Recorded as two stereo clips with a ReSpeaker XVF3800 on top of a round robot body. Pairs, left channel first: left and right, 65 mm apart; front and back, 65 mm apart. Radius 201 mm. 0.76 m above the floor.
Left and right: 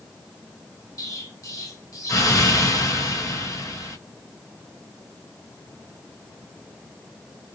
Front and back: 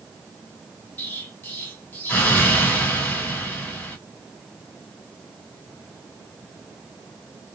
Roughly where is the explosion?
Ahead left.